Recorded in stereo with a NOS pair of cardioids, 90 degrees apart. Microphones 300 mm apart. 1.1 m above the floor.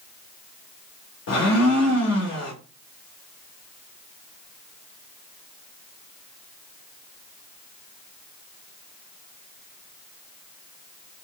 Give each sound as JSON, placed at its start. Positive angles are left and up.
{"t": 1.3, "sound": "a blender", "azimuth_deg": 60, "distance_m": 1.2}